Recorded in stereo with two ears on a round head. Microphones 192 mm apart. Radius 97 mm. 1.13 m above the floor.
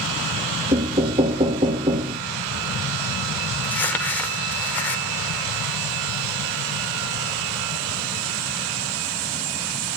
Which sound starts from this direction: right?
Knocking, at 0.7 s.